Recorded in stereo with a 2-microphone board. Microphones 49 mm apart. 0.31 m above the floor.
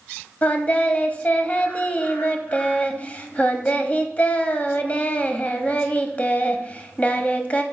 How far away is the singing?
About 0.6 m.